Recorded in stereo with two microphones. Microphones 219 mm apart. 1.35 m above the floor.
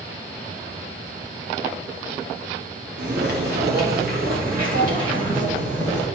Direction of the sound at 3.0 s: 55° right (ahead or behind).